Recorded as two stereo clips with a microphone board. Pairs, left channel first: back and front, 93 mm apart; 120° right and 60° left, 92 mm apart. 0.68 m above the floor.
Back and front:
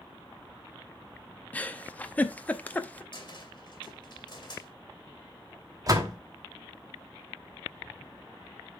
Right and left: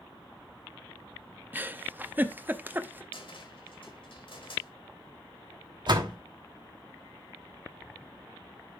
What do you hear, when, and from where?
1.5 s a giggle: 115° left, 0.6 m
3.1 s a cupboard door: 140° right, 2 m
5.9 s a door slam: 40° left, 1.2 m